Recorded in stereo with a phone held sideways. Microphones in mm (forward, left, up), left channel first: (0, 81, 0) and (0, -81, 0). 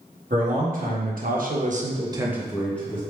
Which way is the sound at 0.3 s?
55° right (ahead or behind).